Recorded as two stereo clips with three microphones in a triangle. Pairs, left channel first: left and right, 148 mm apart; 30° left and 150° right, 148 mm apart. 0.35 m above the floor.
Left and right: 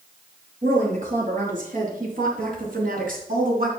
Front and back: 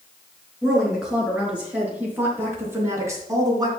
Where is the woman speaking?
65° right, 5.5 m; by 3.7 s 90° right, 3 m.